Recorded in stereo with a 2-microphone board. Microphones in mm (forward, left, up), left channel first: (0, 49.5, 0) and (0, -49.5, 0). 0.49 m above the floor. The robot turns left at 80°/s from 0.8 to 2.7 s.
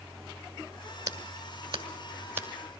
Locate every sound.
1.1 s scissors: 40° right (ahead or behind), 1.5 m; by 2.5 s 15° right (ahead or behind), 1.5 m